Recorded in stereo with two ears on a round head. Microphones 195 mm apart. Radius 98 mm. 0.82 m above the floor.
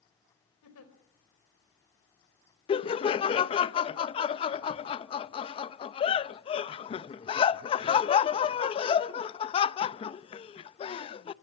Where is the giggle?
75° left (ahead or behind), 4 m.